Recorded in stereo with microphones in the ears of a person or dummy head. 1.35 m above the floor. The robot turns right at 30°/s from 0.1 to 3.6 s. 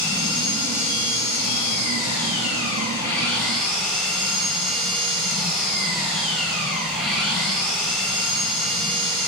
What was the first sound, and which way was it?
An engine running, 75° left.